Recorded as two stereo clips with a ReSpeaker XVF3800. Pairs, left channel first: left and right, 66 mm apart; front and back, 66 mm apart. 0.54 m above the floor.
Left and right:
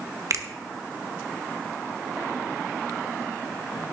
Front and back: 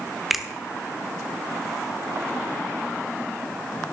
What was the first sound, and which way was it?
A finger snap, 95° right.